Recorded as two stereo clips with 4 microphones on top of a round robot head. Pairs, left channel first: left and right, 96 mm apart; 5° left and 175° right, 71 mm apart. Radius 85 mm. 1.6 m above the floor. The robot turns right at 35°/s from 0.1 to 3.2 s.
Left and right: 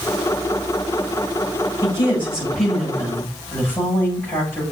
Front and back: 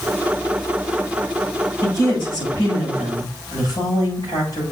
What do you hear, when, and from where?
1.8 s a woman speaking: 25° right, 7.5 m; by 4.6 s 25° left, 7.5 m